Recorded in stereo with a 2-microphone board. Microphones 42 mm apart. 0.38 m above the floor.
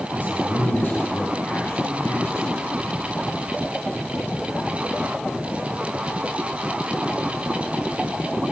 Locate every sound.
0.1 s a man speaking: 50° left (ahead or behind), 3 m; by 2.8 s 70° left (ahead or behind), 3.5 m